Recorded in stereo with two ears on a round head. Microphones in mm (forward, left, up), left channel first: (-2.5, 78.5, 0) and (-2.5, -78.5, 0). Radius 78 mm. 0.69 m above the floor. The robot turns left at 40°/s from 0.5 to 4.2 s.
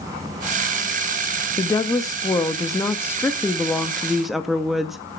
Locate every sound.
1.6 s a woman speaking: 20° left (ahead or behind), 0.7 m; by 5.0 s centre (ahead or behind), 0.7 m